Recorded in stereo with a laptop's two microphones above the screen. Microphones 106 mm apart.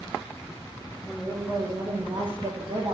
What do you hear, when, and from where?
1.1 s a woman speaking: 5° left (ahead or behind), 0.8 m; by 3.0 s 50° right (ahead or behind), 1.0 m